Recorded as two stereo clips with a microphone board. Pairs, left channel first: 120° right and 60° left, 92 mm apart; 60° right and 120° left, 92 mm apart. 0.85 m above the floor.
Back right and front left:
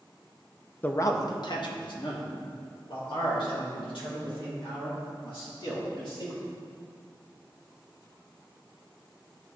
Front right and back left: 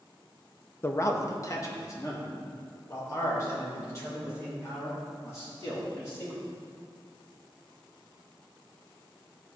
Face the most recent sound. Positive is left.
turn(degrees=-115)